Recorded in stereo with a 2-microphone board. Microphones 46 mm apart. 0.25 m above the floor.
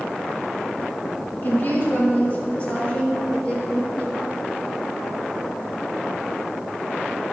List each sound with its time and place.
1.4 s a woman speaking: 50° left (ahead or behind), 2.5 m; by 4.3 s 25° left (ahead or behind), 5.5 m